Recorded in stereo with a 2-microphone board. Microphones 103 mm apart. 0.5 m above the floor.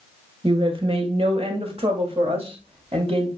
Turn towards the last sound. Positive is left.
turn(degrees=-70)  # may be behind; listen again after turning